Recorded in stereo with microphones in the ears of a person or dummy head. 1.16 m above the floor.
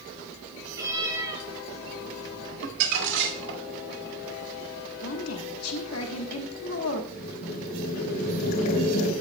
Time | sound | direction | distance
0.7 | a cat meowing | 15° right (ahead or behind) | 4.5 m
2.6 | crumpling | 70° right (ahead or behind) | 2.5 m
5.0 | a woman speaking | 80° left | 1.3 m
7.1 | boiling | 60° left (ahead or behind) | 3 m